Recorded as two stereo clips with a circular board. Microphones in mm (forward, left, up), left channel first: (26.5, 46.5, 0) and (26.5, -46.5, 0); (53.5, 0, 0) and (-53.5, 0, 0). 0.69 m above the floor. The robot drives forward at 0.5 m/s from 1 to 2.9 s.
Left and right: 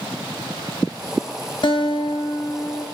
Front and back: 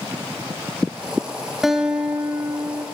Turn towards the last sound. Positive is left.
turn(degrees=125)